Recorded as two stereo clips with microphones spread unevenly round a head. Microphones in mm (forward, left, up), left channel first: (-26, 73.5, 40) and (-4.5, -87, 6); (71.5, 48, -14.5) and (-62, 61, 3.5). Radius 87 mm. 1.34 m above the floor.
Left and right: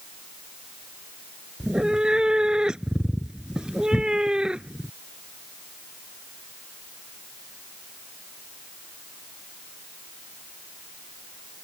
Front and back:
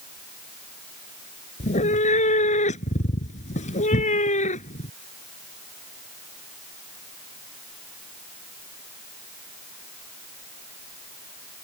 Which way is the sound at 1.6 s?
10° left.